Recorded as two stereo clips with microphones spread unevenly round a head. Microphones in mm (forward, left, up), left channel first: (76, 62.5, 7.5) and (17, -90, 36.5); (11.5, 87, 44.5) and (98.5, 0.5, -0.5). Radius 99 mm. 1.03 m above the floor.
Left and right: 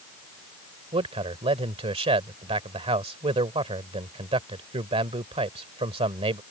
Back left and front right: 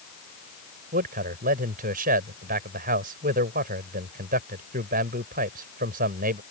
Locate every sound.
0.9 s a man speaking: 55° right